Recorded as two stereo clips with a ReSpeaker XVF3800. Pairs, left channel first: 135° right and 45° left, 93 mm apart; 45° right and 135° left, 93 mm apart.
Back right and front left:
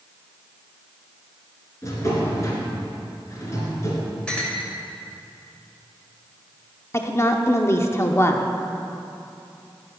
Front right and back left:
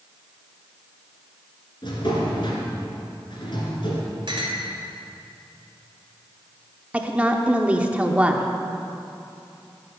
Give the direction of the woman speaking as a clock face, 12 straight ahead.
5 o'clock.